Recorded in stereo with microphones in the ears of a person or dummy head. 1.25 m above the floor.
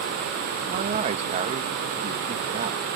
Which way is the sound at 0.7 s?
35° right (ahead or behind).